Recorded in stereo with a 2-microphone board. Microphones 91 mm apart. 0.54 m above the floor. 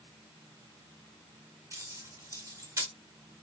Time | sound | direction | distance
1.7 | keys jangling | 35° right (ahead or behind) | 1.3 m